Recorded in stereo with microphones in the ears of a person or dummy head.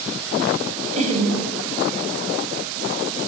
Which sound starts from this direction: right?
Laughter, at 0.9 s.